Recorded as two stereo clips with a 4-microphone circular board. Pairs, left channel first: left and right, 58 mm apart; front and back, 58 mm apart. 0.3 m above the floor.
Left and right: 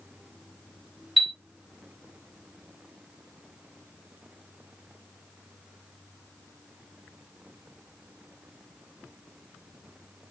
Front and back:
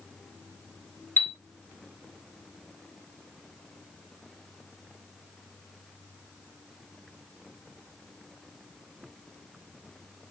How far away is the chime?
About 0.7 m.